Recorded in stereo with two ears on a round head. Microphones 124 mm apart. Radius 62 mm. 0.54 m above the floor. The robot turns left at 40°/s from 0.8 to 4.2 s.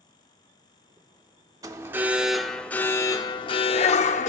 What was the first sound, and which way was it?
An alarm, 150° right.